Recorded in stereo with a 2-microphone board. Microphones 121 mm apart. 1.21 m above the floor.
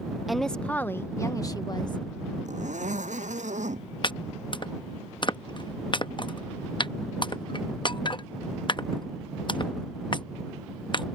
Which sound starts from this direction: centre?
A woman speaking, at 0.3 s.